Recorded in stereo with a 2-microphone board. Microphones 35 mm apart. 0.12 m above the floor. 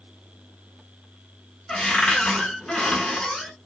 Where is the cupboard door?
15° left (ahead or behind), 0.7 m.